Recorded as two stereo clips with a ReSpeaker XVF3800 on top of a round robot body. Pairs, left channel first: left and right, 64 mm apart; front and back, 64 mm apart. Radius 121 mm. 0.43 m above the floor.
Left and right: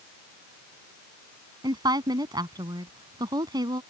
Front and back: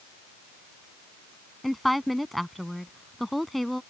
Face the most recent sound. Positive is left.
turn(degrees=-90)